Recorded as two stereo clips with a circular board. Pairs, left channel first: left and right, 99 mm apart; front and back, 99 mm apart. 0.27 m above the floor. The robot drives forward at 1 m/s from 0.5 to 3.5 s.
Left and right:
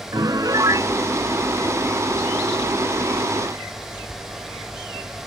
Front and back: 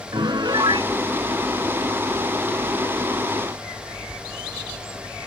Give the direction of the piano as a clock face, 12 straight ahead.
5 o'clock.